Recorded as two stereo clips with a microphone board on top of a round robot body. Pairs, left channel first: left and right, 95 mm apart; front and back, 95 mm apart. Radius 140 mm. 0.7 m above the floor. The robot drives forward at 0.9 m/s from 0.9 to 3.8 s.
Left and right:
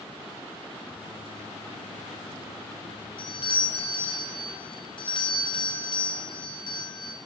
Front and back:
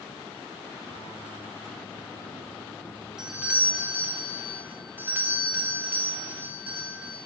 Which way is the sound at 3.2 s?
100° left.